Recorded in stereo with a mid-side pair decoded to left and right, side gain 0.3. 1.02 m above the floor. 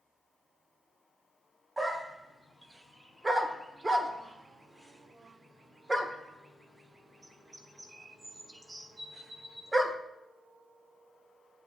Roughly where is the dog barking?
Ahead right.